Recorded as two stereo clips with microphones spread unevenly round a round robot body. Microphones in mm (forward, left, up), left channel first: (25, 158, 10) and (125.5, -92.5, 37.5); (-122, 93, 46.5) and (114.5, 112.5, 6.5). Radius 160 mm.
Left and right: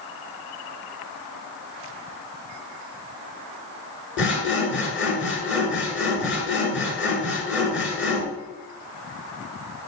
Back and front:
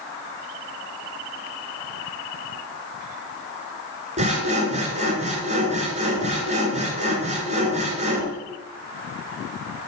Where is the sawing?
70° left, 1.9 m.